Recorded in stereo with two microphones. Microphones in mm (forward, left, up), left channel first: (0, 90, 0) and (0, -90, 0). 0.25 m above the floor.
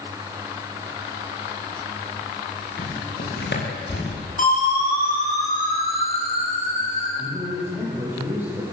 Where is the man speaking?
10° right (ahead or behind), 10 m.